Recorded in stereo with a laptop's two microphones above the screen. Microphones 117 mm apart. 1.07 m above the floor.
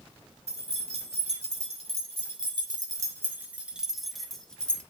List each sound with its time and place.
0.5 s keys jangling: 85° right, 2.5 m; by 4.8 s 10° left (ahead or behind), 2.5 m